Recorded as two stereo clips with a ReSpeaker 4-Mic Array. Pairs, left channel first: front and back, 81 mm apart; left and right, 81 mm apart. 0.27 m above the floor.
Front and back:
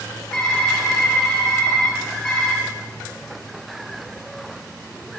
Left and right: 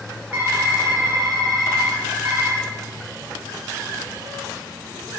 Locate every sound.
0.3 s typing on a keyboard: 60° right, 0.9 m